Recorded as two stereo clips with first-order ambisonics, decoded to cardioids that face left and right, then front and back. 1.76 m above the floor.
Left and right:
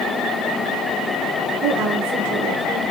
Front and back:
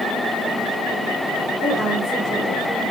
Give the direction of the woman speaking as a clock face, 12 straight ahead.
3 o'clock.